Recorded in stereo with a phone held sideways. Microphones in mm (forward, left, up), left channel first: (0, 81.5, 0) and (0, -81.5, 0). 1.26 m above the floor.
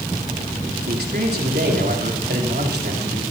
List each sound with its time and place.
0.9 s a man speaking: 80° right, 3.5 m